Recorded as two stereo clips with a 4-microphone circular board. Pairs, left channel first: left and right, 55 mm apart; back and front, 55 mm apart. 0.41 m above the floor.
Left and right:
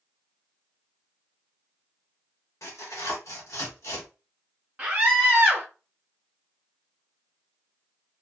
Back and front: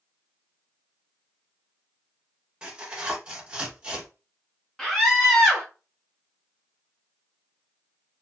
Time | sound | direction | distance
2.6 | tearing paper | 70° left | 1.0 m
4.8 | a scream | 100° right | 1.2 m